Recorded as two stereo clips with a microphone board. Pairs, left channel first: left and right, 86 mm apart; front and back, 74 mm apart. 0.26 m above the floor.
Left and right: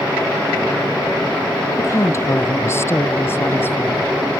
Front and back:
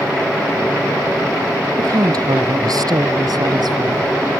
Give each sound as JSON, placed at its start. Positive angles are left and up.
{"t": 1.8, "sound": "a woman speaking", "azimuth_deg": 145}